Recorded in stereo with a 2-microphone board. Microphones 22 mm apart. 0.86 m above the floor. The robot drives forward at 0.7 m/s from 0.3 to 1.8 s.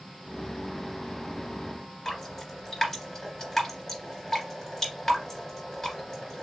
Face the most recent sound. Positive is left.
turn(degrees=20)  # may be behind; listen again after turning